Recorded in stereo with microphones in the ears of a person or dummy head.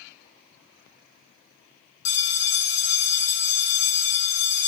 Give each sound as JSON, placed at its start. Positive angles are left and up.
{"t": 2.0, "sound": "a bell", "side_deg": 20, "distance_m": 0.5}